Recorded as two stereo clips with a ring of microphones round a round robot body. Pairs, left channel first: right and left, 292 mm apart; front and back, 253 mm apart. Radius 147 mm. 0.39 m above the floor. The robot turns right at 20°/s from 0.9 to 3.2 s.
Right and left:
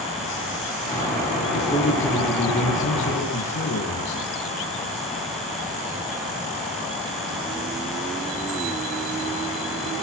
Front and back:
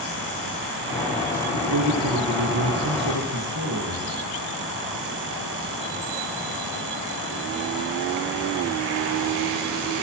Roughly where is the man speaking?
Behind.